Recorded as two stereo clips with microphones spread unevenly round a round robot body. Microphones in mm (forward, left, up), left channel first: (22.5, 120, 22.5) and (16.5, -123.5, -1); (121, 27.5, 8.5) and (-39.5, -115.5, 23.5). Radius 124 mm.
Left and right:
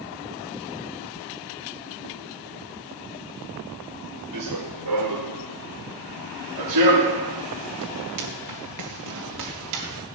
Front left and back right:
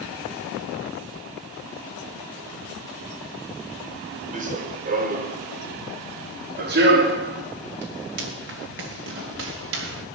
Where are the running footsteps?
85° right, 4.5 m; by 10.1 s 115° right, 6 m.